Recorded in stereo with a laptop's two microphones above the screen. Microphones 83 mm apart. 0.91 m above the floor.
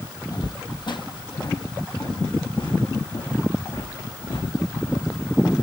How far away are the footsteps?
About 1.8 m.